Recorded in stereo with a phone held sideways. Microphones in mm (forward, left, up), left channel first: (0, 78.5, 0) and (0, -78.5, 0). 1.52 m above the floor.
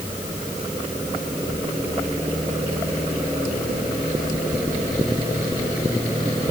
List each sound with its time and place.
Only background noise.